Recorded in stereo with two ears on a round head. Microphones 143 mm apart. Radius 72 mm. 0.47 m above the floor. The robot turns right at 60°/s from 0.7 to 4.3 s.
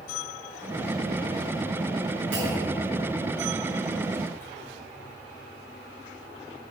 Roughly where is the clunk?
Right.